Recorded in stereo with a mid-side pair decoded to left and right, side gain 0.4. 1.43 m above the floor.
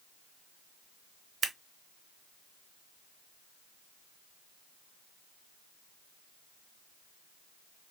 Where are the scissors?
60° right, 0.7 m.